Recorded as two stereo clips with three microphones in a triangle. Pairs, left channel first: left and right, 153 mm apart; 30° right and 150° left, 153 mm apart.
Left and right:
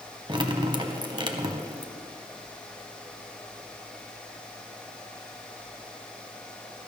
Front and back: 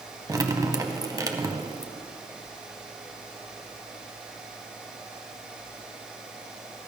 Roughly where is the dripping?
Behind right.